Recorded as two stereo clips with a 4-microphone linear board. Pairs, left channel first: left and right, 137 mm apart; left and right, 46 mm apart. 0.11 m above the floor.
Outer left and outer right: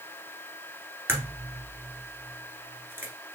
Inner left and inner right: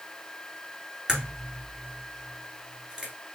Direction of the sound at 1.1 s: 15° right (ahead or behind).